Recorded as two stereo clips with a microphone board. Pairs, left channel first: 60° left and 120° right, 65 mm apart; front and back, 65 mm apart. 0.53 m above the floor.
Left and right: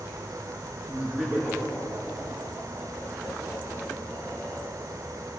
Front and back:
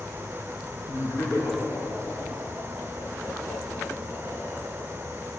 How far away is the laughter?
About 5.5 m.